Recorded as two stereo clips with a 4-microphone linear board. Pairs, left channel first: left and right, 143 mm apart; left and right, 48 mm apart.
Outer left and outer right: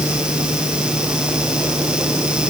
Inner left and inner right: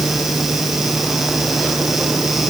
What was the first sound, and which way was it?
Only background noise.